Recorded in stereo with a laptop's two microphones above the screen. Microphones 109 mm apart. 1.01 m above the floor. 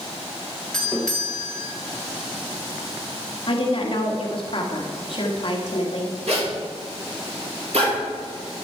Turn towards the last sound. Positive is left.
turn(degrees=-80)